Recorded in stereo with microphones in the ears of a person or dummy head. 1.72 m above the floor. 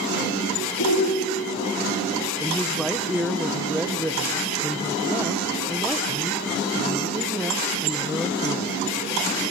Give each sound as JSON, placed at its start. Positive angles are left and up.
{"t": 0.8, "sound": "a shout", "side_deg": 70, "distance_m": 3.5}
{"t": 2.4, "sound": "a woman speaking", "side_deg": 0, "distance_m": 1.5}